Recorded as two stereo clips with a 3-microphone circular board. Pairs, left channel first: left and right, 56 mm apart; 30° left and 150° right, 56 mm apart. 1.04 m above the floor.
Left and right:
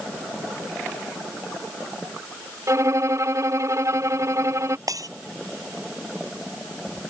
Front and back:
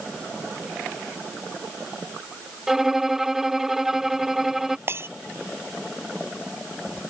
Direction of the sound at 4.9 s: 100° right.